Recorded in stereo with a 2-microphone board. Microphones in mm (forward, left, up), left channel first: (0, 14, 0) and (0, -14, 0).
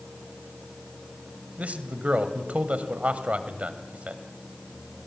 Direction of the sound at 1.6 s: 55° right (ahead or behind).